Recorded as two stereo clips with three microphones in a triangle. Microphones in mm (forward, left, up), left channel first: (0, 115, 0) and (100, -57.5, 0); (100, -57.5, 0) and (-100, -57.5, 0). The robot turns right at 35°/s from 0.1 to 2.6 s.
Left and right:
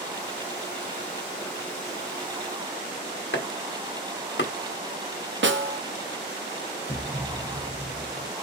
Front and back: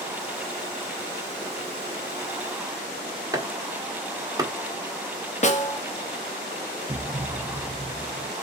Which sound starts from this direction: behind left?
A thud, at 6.9 s.